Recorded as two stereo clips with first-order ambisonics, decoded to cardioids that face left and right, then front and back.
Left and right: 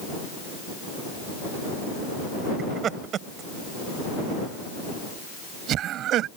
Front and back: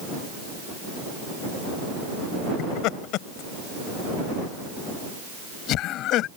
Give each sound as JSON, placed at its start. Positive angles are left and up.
{"t": 2.6, "sound": "laughter", "azimuth_deg": -30}